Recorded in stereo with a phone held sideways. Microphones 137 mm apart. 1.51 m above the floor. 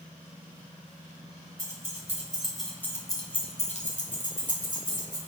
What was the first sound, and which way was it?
Keys jangling, 20° right (ahead or behind).